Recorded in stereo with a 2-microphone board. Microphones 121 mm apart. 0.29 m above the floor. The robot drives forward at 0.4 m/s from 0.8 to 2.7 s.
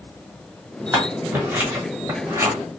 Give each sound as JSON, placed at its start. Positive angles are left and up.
{"t": 0.9, "sound": "scissors", "side_deg": -20, "distance_m": 1.3}